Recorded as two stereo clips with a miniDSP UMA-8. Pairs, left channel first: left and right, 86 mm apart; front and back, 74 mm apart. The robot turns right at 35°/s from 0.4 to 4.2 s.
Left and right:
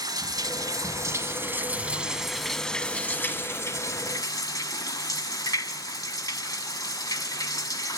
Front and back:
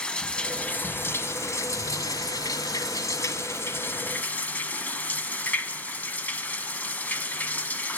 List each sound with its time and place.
0.0 s running water: 70° right, 1.4 m; by 8.0 s 60° left, 1.4 m